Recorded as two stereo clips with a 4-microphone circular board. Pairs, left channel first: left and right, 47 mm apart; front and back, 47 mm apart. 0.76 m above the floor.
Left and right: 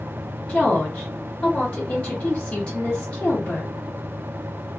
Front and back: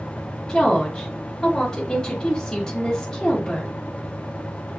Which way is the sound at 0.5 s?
60° left.